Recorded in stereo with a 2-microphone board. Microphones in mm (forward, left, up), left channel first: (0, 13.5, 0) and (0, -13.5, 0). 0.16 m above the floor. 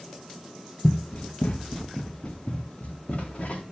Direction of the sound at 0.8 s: 45° left (ahead or behind).